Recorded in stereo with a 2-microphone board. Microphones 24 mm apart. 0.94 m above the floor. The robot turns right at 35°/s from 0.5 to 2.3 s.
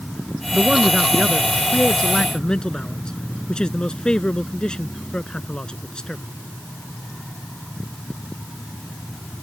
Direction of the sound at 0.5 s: 30° right.